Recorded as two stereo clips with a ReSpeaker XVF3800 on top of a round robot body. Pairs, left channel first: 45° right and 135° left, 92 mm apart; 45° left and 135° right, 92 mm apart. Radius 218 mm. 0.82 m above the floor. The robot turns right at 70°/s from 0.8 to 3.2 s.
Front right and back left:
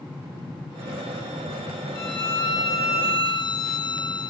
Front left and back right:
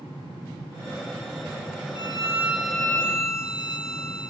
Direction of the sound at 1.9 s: 100° right.